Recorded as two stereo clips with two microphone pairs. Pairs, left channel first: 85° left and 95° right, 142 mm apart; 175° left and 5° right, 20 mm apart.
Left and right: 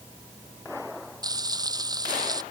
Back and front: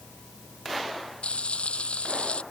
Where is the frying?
160° right.